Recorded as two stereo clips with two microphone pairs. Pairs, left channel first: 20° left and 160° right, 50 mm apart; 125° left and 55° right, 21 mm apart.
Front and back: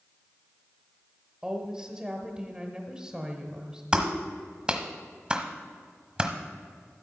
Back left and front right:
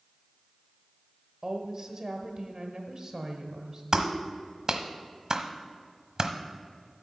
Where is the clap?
95° right, 1.1 m.